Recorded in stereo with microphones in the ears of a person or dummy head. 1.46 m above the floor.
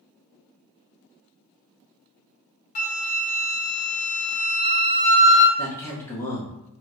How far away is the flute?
About 0.6 m.